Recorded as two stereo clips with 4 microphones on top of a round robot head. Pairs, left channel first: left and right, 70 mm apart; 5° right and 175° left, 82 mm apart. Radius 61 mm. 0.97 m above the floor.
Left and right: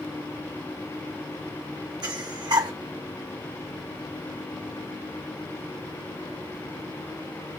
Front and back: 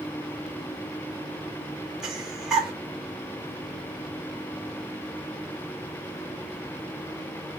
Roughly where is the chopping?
No chopping in this recording.